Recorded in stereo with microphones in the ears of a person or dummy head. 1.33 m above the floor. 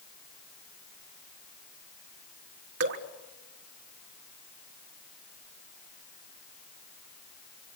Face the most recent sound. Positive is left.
turn(degrees=-60)  # may be behind; listen again after turning